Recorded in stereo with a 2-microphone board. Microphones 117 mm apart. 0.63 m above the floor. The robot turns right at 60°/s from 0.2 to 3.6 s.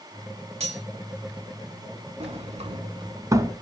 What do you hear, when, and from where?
0.6 s cutlery clinking: 65° right (ahead or behind), 1.4 m; by 0.8 s 50° right (ahead or behind), 1.4 m
2.2 s a sliding door: 65° right (ahead or behind), 1.0 m; by 3.5 s 20° right (ahead or behind), 1.0 m